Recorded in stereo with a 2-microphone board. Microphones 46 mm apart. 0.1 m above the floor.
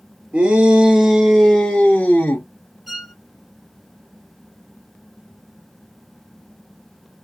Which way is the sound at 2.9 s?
5° right (ahead or behind).